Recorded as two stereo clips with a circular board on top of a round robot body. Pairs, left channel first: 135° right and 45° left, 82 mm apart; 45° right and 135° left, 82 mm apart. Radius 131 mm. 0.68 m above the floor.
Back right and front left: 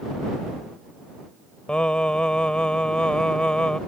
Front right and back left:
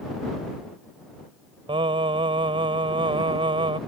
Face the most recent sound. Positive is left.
turn(degrees=145)